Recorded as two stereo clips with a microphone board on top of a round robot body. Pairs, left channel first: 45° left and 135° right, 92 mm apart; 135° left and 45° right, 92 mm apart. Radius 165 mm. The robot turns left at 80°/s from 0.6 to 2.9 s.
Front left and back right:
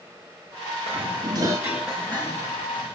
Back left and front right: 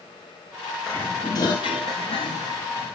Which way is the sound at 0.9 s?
135° right.